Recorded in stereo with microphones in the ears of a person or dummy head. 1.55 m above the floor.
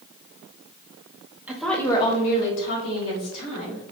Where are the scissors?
I don't hear scissors.